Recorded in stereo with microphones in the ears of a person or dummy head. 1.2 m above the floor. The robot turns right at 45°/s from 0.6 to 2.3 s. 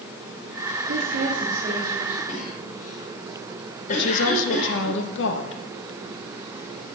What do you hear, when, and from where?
0.9 s a woman speaking: 70° right, 2 m; by 2.2 s 10° right, 2 m
2.3 s a cough: 40° left (ahead or behind), 3.5 m
3.9 s a woman speaking: 60° left (ahead or behind), 1.5 m